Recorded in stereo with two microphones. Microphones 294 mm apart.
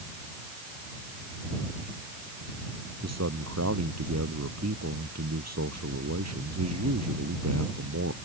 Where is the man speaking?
55° right (ahead or behind).